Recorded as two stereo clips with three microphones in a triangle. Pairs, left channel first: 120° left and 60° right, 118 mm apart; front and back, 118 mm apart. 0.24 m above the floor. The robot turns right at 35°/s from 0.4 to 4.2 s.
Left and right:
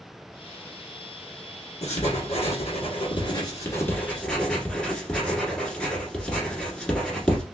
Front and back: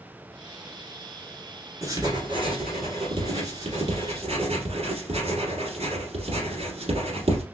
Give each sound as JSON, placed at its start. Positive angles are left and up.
{"t": 1.8, "sound": "writing", "azimuth_deg": 120, "distance_m": 1.5}